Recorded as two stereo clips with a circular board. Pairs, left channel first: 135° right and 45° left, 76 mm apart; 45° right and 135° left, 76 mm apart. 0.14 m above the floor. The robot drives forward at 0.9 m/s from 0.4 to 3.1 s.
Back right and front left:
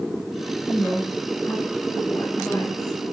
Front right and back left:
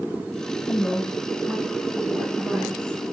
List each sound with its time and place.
0.7 s a woman speaking: 65° right, 1.1 m; by 3.0 s 170° right, 2 m